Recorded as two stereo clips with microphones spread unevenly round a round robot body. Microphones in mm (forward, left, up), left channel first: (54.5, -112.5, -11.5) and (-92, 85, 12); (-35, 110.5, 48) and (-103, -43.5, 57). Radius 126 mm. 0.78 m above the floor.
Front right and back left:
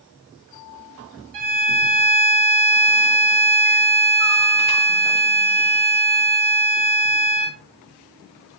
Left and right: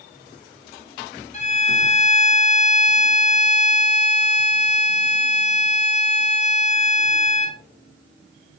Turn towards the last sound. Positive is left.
turn(degrees=115)